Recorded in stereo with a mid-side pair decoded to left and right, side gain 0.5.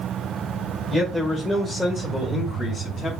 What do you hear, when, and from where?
0.9 s a man speaking: straight ahead, 1.8 m; by 3.1 s 35° left, 2.5 m